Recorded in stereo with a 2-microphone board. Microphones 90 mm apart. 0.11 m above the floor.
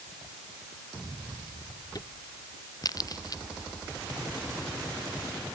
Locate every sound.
1.9 s a crack: 45° left (ahead or behind)